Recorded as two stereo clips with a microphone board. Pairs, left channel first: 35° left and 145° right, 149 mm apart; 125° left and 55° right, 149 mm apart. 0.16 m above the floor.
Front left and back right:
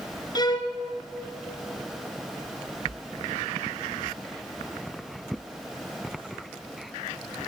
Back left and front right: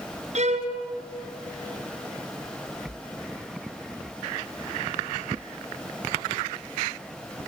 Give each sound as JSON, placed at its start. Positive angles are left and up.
{"t": 0.3, "sound": "a violin", "azimuth_deg": -25, "distance_m": 3.0}